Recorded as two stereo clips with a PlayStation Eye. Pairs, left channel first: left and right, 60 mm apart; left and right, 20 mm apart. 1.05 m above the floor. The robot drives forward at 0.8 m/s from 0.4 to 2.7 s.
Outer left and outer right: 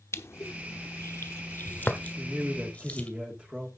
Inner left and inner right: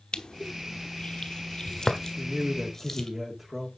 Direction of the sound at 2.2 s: 10° right (ahead or behind).